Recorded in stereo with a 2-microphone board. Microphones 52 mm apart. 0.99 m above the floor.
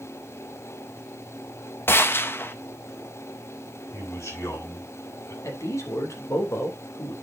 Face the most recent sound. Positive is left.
turn(degrees=80)